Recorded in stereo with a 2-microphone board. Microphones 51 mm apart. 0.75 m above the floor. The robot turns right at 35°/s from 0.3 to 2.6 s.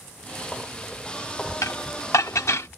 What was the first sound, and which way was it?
Dishes clattering, 80° left.